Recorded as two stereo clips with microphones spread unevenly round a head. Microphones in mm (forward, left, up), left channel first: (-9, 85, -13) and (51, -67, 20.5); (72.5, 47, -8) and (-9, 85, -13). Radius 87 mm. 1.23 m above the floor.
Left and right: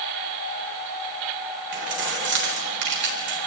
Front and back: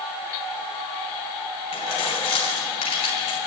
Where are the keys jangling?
55° right, 4 m.